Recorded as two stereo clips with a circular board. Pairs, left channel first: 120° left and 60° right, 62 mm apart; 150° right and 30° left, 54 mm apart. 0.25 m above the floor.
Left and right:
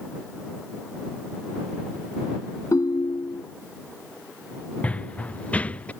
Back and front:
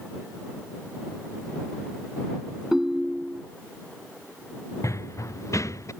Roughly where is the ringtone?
Left.